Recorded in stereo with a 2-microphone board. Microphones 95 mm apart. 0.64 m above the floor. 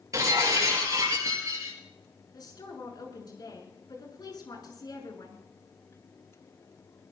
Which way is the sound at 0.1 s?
40° right (ahead or behind).